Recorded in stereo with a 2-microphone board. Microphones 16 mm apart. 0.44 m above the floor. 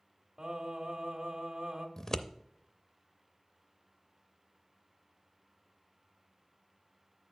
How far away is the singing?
About 1.5 m.